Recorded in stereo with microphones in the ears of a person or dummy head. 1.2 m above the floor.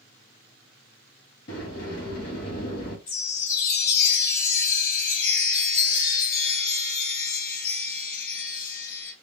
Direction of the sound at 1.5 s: 60° left (ahead or behind).